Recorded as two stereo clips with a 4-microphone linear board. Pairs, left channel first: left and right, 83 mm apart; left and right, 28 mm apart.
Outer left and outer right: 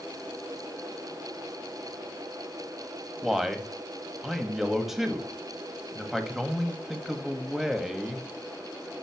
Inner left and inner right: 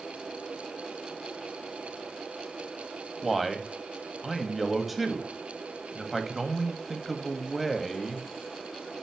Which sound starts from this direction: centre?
A man speaking, at 3.2 s.